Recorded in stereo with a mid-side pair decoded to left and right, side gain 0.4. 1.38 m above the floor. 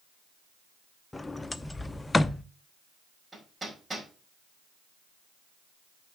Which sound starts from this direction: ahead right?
Hammering, at 3.3 s.